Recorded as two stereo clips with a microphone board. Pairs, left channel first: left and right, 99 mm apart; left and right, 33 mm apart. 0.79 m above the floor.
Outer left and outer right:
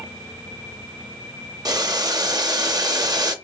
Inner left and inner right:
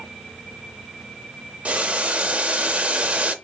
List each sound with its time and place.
1.6 s boiling: 45° right (ahead or behind), 0.6 m